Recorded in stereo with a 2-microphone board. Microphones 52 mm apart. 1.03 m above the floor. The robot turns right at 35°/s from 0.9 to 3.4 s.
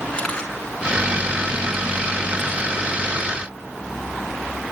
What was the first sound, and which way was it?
A camera shutter, 15° left (ahead or behind).